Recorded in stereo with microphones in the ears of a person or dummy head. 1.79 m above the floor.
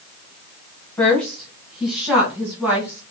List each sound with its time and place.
1.0 s a woman speaking: 5° left (ahead or behind), 1.2 m; by 3.0 s 10° right (ahead or behind), 2 m